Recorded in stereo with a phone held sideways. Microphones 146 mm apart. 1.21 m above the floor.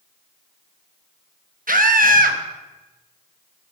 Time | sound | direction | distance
1.7 | a scream | 80° right | 1.1 m